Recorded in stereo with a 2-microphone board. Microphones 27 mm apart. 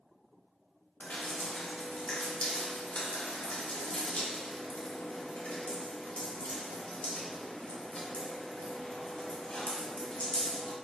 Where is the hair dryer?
I don't hear a hair dryer.